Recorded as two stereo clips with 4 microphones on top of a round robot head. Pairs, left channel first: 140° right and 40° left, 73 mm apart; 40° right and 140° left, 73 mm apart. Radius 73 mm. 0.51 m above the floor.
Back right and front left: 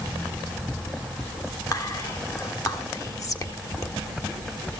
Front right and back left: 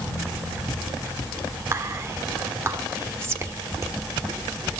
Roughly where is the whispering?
Behind.